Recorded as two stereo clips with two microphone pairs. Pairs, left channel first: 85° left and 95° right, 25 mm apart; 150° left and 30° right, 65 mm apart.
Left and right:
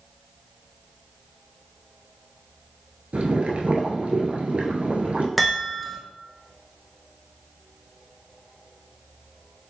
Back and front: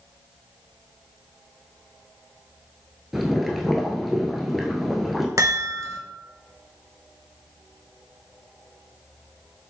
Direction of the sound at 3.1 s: 115° right.